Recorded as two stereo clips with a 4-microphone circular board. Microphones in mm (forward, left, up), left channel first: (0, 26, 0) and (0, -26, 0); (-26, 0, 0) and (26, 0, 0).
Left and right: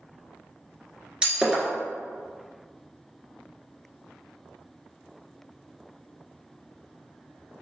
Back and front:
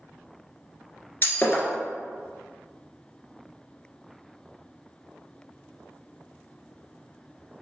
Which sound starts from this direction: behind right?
Breaking glass, at 1.2 s.